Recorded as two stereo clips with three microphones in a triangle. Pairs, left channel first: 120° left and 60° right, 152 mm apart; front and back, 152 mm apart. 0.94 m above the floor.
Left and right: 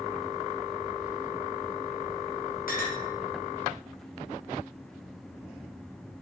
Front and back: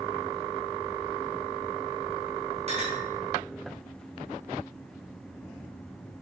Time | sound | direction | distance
2.7 | a clink | 135° left | 0.9 m